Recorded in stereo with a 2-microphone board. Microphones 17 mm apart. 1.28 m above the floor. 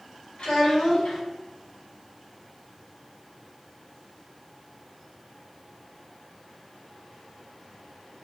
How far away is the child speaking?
About 1.8 m.